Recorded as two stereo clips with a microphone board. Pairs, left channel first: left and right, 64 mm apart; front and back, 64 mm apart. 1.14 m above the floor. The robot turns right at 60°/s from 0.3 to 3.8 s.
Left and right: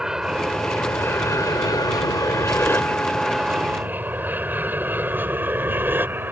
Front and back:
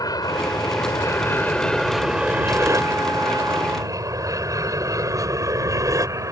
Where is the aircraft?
10° right; by 6.3 s 145° right.